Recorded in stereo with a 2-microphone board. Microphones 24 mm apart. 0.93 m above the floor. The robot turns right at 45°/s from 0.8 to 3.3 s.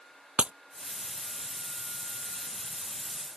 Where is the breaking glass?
55° right (ahead or behind).